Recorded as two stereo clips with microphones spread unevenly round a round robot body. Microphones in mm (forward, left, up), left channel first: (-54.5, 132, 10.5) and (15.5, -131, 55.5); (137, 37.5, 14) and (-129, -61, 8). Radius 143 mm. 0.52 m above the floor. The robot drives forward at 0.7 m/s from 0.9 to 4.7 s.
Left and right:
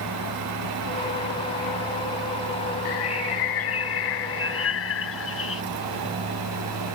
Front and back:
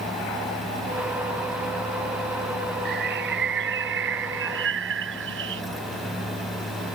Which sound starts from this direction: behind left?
A bird, at 2.9 s.